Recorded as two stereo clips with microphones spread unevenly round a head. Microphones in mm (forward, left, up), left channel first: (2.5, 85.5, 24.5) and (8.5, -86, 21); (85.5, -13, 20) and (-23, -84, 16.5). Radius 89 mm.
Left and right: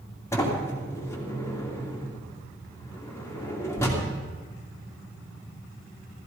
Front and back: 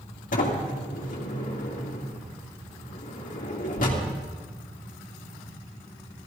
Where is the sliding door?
15° left, 2.5 m.